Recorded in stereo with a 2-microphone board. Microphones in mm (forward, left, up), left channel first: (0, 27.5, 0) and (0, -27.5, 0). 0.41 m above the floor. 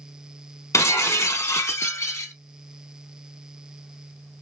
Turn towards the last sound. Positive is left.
turn(degrees=80)